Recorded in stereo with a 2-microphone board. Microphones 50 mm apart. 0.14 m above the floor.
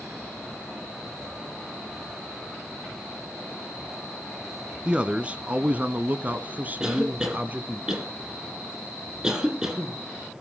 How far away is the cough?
About 6 m.